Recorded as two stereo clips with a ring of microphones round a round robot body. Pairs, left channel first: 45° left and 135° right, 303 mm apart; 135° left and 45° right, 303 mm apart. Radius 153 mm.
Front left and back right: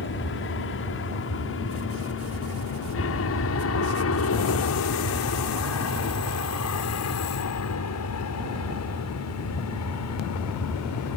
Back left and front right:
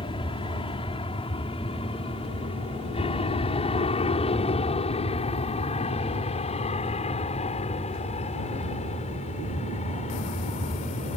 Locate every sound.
0.0 s an aircraft: 70° left